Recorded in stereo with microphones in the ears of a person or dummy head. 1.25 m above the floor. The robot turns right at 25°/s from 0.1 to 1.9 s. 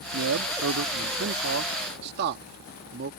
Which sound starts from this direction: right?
A man speaking, at 0.1 s.